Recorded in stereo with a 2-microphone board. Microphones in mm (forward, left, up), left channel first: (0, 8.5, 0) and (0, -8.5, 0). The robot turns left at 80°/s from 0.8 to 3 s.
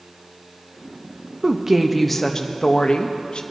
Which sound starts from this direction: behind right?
A woman speaking, at 1.4 s.